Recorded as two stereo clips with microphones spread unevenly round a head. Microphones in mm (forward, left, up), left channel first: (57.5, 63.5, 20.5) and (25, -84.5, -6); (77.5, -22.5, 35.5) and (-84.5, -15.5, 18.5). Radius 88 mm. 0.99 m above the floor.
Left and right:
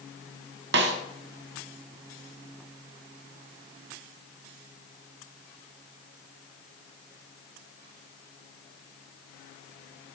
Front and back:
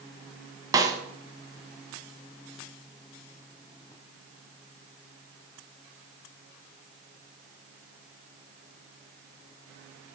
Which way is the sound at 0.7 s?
115° right.